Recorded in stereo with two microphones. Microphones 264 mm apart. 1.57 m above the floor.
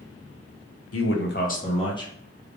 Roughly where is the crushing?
I don't hear crushing.